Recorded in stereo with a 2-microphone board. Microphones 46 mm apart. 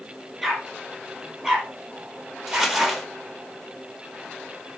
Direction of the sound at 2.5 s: 5° right (ahead or behind).